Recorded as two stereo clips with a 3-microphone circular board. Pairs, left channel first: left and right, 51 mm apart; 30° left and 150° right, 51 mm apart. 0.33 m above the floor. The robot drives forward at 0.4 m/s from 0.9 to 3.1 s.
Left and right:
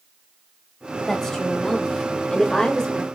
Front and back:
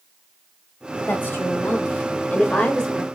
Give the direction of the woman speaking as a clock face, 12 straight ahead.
11 o'clock.